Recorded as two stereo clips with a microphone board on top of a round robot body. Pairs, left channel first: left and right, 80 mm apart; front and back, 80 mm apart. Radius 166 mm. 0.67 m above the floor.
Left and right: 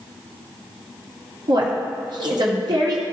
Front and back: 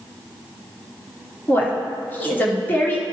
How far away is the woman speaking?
About 2 m.